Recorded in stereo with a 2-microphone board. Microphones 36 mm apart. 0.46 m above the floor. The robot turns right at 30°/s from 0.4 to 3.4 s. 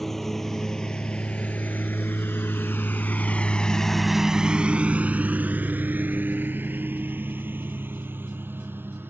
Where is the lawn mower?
10° left (ahead or behind); by 9.1 s 75° right (ahead or behind).